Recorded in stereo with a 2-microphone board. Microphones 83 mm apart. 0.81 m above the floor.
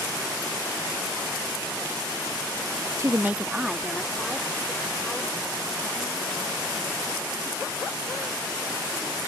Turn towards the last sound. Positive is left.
turn(degrees=10)  # may be behind; listen again after turning